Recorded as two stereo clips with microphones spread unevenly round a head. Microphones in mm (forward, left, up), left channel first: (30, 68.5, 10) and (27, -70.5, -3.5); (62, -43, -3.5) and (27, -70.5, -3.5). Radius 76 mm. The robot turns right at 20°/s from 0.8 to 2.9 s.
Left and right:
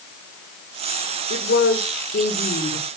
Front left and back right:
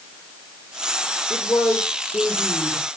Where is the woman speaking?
95° left, 5.5 m; by 2.9 s 130° left, 5.5 m.